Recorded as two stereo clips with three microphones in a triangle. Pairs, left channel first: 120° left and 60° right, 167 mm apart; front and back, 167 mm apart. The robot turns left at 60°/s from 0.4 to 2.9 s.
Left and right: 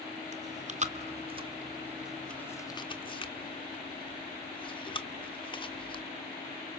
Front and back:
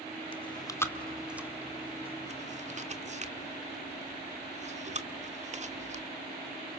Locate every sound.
0.3 s chewing: 45° right, 1.5 m; by 6.0 s 165° left, 1.5 m